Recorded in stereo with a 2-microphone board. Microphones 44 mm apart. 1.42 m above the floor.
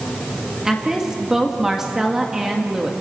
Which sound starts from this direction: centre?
A woman speaking, at 0.7 s.